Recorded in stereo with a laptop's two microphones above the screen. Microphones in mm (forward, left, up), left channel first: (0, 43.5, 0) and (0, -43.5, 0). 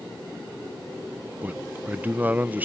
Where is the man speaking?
20° right (ahead or behind).